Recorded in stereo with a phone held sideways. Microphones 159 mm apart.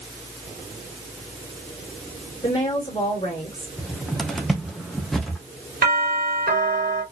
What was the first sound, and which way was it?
A woman speaking, 35° left (ahead or behind).